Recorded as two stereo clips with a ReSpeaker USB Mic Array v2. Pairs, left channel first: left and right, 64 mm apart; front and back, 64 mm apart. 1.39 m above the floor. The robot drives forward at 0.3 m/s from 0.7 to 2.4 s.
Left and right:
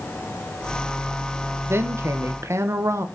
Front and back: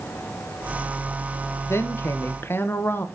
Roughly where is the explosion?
No explosion in this recording.